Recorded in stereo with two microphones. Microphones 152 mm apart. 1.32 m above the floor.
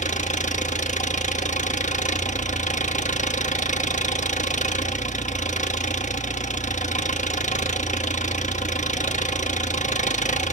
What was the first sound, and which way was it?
An engine running, 55° left (ahead or behind).